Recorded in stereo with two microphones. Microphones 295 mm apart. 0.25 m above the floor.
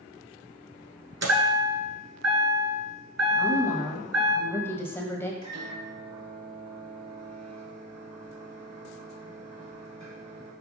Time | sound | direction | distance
1.2 | a chime | 60° right (ahead or behind) | 1.2 m
3.4 | a woman speaking | 10° left (ahead or behind) | 1.0 m
5.4 | a microwave | 65° right (ahead or behind) | 3.5 m